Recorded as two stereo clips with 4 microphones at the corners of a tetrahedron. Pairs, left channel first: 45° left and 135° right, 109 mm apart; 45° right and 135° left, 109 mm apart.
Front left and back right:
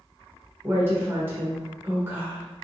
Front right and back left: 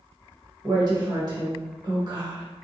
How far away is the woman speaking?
About 1.1 m.